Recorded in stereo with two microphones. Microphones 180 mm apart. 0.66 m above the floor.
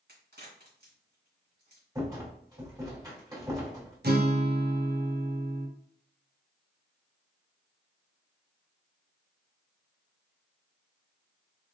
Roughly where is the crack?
Right.